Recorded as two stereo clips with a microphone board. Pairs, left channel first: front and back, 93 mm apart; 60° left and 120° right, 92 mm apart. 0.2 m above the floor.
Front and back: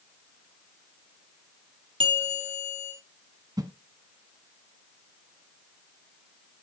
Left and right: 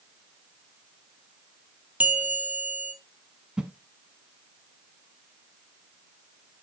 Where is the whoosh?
165° left, 0.9 m.